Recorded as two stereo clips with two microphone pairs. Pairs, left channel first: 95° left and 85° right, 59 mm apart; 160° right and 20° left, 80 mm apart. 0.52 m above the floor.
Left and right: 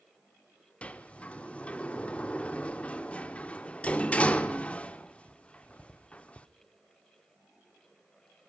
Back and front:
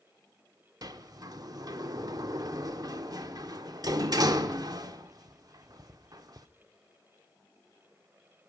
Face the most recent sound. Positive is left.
turn(degrees=30)